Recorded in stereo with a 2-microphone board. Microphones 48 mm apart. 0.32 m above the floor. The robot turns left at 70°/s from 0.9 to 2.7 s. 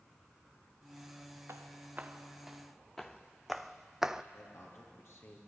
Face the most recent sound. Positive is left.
turn(degrees=65)  # may be behind; listen again after turning